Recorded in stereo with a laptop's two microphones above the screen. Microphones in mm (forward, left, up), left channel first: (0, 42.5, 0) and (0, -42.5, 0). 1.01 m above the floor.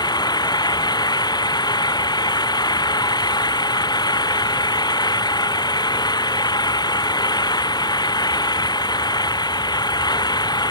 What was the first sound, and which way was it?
An engine running, 55° left (ahead or behind).